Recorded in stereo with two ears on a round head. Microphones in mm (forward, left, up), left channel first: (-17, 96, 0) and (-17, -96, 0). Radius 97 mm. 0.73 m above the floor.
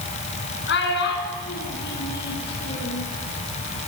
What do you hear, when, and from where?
0.7 s a child speaking: 60° left (ahead or behind), 6 m; by 3.0 s 55° left (ahead or behind), 8.5 m